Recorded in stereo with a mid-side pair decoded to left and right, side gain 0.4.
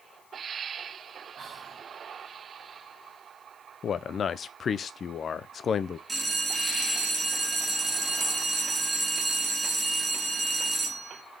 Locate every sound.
1.4 s whispering: 60° right, 0.8 m
3.8 s a man speaking: 55° left, 0.6 m
6.1 s a bell: 20° right, 1.4 m